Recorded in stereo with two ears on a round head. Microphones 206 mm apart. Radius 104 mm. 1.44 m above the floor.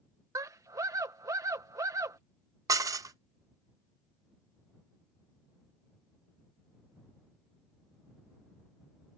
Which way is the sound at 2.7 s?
15° right (ahead or behind).